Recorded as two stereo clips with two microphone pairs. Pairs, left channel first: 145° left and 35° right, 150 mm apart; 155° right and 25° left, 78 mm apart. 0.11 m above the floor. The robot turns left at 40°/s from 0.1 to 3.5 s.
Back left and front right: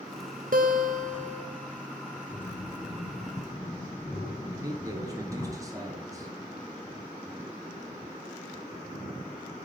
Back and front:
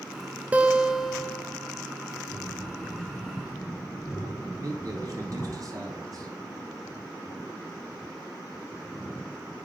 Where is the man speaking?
25° left, 1.7 m.